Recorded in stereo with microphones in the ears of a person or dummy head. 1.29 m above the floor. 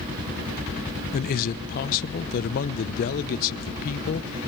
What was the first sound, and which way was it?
A man speaking, 50° left (ahead or behind).